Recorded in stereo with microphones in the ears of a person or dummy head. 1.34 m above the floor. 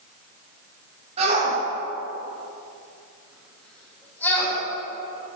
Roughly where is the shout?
Right.